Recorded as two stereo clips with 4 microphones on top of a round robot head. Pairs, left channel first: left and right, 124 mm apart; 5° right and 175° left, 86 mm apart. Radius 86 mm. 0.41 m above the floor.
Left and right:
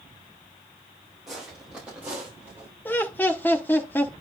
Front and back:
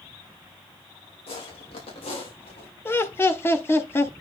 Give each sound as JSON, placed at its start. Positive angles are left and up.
{"t": 1.3, "sound": "footsteps", "azimuth_deg": 0, "distance_m": 4.5}
{"t": 2.9, "sound": "laughter", "azimuth_deg": 30, "distance_m": 1.5}